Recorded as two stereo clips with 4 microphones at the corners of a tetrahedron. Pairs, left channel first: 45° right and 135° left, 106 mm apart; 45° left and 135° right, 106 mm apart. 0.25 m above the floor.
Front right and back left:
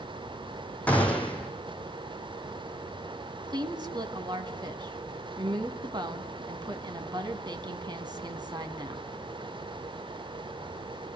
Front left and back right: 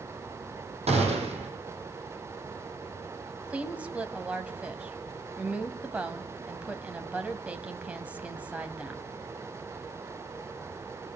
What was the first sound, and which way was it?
A gunshot, 120° right.